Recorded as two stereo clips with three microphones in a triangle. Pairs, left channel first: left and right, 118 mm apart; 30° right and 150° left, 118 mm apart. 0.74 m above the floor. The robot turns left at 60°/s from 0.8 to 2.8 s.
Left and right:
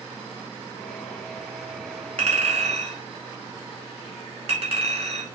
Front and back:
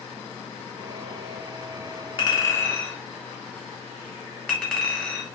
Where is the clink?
75° right, 0.9 m; by 5.2 s 110° right, 0.9 m.